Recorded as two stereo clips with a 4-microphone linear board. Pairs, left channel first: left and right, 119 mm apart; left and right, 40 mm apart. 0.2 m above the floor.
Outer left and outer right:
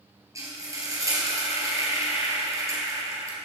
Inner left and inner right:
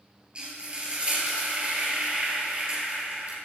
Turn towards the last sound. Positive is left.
turn(degrees=-30)  # may be behind; listen again after turning